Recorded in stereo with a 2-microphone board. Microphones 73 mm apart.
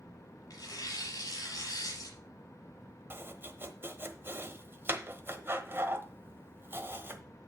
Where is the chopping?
35° right (ahead or behind), 1.0 m.